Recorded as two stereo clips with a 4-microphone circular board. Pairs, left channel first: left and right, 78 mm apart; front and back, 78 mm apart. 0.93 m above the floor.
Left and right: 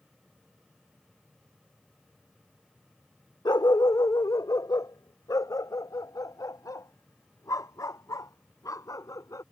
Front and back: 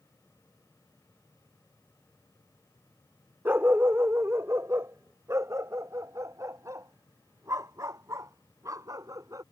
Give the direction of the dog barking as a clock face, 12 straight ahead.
8 o'clock.